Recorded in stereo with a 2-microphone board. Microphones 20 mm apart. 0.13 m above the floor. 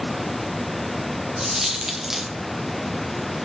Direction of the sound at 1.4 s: 25° right (ahead or behind).